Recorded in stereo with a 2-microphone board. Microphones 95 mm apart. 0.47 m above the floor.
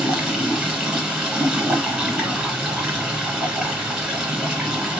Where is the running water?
5° right (ahead or behind), 1.4 m.